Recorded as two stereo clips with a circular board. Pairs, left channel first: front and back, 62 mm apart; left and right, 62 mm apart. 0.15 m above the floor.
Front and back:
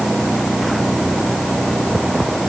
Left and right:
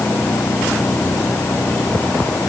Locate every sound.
Only background noise.